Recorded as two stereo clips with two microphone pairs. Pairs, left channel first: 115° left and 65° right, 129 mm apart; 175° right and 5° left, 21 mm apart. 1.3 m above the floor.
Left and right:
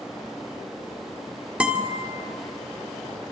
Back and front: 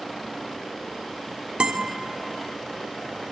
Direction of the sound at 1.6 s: 20° left.